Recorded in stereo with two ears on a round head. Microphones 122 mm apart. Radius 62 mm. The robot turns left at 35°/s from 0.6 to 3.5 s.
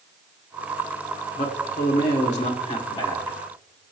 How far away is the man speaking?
About 1.9 m.